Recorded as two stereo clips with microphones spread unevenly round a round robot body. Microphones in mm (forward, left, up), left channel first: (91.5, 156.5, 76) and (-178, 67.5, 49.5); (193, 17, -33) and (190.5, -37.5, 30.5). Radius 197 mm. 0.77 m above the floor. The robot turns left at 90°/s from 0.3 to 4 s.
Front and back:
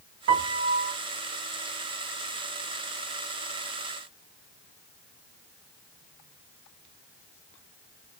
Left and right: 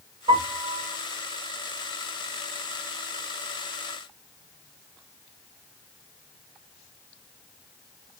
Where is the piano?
155° right, 0.8 m; by 0.9 s 145° left, 0.8 m.